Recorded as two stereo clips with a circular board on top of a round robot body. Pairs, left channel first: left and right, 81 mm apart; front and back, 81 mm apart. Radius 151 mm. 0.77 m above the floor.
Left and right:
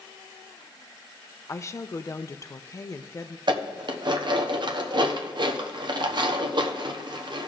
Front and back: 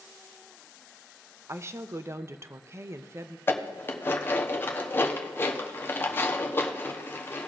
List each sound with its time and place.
1.5 s a woman speaking: 135° left, 0.7 m
3.5 s dishes clattering: 65° right, 0.9 m